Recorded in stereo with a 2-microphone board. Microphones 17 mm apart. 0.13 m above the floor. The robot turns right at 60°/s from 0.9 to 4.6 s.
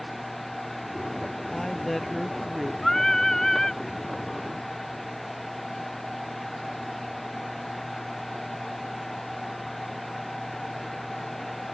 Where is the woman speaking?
140° left; by 2.7 s 145° right.